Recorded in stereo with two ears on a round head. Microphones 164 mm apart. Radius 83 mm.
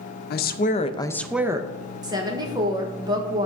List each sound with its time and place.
0.3 s a woman speaking: 55° left (ahead or behind), 0.7 m; by 1.7 s 25° right (ahead or behind), 0.5 m
2.0 s a woman speaking: 20° right (ahead or behind), 1.4 m